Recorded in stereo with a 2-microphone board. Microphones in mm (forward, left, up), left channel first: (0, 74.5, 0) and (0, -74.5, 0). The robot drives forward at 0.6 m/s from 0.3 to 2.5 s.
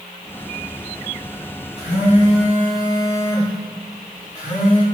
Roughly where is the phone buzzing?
Left.